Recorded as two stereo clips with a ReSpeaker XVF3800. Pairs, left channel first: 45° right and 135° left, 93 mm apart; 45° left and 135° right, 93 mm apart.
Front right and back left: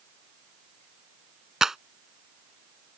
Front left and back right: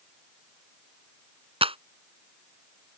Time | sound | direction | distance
1.6 | a clap | 140° right | ?